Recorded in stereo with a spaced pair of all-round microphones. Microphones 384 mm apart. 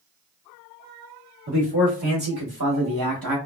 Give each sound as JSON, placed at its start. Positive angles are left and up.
{"t": 1.5, "sound": "a man speaking", "side_deg": -90, "distance_m": 2.0}